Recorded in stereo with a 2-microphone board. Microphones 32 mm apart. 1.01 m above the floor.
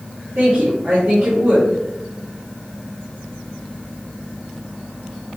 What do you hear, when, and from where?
0.3 s a woman speaking: 65° right (ahead or behind), 2.5 m